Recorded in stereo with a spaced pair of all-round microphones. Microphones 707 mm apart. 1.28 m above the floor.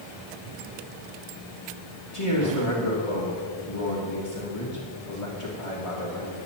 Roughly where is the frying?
I don't hear frying.